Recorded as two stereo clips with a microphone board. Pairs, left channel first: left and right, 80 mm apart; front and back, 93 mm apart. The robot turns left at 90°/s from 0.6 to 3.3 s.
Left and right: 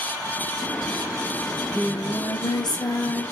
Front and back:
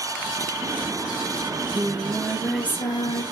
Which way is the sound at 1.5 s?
175° left.